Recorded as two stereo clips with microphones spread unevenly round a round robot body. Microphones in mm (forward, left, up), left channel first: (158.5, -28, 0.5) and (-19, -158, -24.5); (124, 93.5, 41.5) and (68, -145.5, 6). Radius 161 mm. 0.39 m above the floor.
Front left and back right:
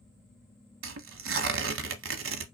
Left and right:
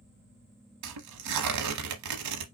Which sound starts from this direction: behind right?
Tearing paper, at 0.8 s.